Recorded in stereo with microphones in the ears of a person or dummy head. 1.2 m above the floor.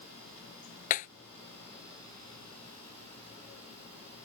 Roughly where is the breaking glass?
Left.